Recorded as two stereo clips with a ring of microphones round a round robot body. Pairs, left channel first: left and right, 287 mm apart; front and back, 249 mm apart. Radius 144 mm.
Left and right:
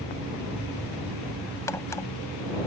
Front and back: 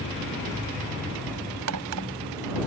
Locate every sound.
1.7 s a crack: 170° left